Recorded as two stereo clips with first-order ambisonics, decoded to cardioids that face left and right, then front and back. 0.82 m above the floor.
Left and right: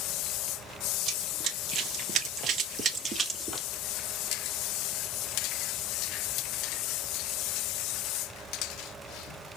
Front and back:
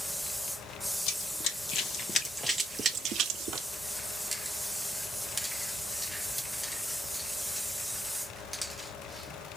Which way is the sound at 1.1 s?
30° right.